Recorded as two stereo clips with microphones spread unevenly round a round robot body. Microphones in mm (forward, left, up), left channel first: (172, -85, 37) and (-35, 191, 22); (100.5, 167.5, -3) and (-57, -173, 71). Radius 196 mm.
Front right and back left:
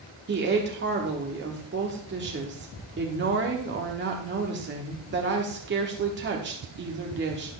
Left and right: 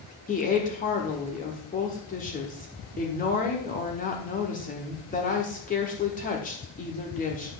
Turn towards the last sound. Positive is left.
turn(degrees=100)